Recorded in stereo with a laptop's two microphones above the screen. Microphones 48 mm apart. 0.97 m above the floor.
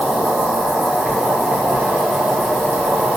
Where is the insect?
30° right (ahead or behind), 1.1 m.